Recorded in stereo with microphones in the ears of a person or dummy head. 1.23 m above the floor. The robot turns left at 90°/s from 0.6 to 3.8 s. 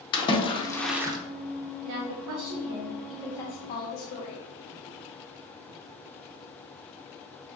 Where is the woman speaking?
60° right, 0.5 m; by 4.4 s 120° left, 0.5 m.